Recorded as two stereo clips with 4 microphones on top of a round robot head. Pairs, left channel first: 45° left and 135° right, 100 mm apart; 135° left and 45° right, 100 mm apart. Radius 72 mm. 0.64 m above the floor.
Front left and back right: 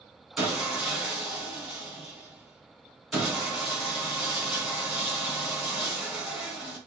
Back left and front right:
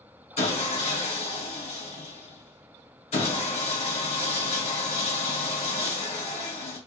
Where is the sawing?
140° left, 3.5 m.